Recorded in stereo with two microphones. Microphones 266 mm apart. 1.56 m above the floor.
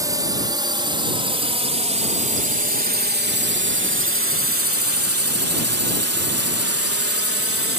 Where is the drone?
15° right (ahead or behind); by 7.8 s 55° right (ahead or behind).